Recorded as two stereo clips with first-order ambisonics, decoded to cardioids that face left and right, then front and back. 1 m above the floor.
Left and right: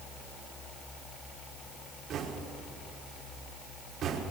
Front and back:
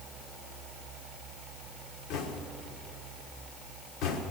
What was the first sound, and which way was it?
Knocking, 35° right.